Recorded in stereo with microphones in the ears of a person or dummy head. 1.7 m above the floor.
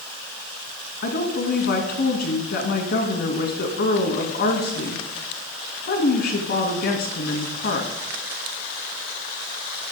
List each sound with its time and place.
1.0 s a woman speaking: 60° left (ahead or behind), 2.5 m